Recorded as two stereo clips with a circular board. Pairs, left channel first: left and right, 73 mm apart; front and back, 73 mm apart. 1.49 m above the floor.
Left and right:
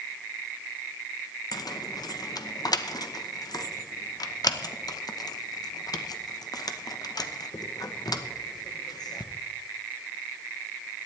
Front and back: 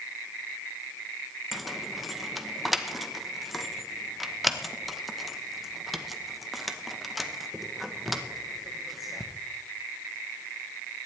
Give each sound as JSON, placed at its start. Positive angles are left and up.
{"t": 1.5, "sound": "keys jangling", "azimuth_deg": 90, "distance_m": 0.9}